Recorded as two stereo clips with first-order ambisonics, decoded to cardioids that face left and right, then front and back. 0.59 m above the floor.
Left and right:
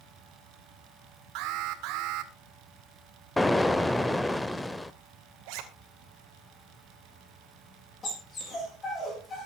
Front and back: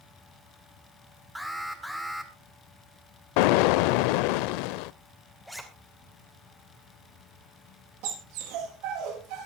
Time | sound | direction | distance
1.4 | an alarm | 90° right | 1.9 m
3.4 | an explosion | 5° left | 0.6 m
5.5 | a zipper | 95° right | 2.5 m
8.0 | a dog barking | 165° left | 6.5 m